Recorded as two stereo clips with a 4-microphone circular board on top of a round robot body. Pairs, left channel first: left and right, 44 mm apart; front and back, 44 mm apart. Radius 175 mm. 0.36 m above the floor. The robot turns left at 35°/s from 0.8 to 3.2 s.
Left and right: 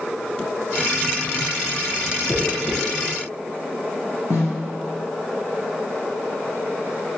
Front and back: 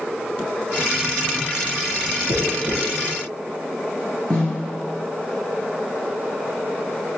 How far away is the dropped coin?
About 2.5 m.